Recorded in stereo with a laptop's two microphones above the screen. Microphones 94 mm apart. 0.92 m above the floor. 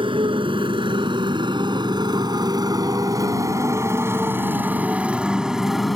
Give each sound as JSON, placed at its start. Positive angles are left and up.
{"t": 0.0, "sound": "a motorcycle", "side_deg": -65}